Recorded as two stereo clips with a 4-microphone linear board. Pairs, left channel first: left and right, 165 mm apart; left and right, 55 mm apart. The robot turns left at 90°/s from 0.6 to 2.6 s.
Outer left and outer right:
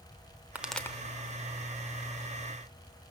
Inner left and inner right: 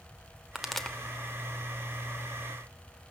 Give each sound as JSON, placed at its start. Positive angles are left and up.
{"t": 0.6, "sound": "a pop", "side_deg": -10, "distance_m": 1.0}